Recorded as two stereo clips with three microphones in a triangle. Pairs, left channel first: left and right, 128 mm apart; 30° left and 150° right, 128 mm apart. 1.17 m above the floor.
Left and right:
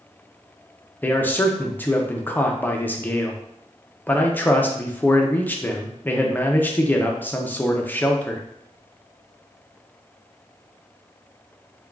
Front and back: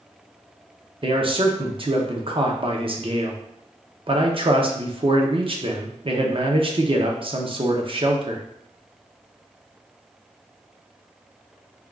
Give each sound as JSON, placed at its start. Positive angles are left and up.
{"t": 1.0, "sound": "a man speaking", "azimuth_deg": 165, "distance_m": 0.6}